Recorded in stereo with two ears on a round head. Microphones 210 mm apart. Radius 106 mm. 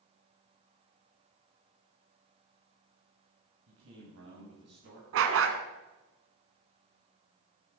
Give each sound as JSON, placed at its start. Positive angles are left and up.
{"t": 3.7, "sound": "a man speaking", "side_deg": -65, "distance_m": 4.0}
{"t": 5.1, "sound": "a dog barking", "side_deg": -65, "distance_m": 1.5}